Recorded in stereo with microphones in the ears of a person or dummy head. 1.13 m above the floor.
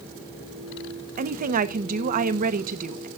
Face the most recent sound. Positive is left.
turn(degrees=-40)  # may be behind; listen again after turning